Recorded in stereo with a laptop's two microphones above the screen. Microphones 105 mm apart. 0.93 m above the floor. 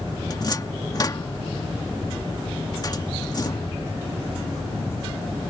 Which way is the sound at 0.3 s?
40° left (ahead or behind).